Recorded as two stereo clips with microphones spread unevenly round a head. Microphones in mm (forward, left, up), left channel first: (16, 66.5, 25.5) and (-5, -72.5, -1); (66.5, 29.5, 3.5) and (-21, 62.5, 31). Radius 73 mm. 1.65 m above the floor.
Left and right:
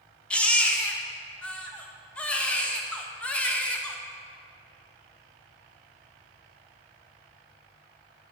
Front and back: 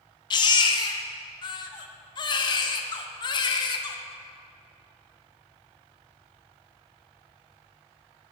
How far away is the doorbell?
I don't hear a doorbell.